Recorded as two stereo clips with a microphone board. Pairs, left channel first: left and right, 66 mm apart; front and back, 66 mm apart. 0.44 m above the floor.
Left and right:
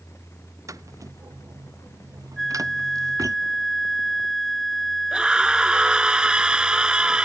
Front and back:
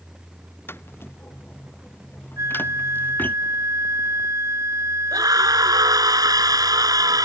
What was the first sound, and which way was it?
Footsteps, 55° right.